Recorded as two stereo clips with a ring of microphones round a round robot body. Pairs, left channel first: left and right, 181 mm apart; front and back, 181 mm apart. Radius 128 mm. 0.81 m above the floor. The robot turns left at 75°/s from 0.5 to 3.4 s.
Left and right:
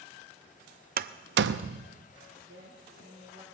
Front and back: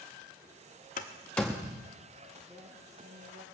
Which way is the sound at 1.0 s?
55° right.